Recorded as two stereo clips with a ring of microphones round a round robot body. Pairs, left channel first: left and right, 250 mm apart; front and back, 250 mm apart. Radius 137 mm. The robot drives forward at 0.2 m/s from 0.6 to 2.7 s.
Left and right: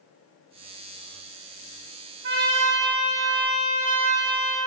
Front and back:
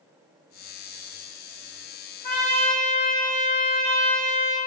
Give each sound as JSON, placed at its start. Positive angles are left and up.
{"t": 2.2, "sound": "a trumpet", "azimuth_deg": -110, "distance_m": 3.0}